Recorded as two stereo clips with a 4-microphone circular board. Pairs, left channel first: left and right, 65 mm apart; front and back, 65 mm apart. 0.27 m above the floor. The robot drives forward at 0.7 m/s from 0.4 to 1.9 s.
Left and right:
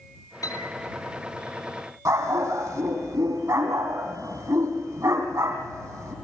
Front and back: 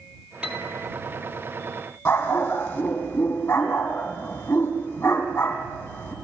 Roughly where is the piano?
Left.